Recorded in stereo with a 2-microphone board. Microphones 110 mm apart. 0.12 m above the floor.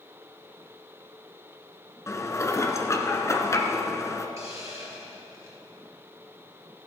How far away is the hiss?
About 2.5 m.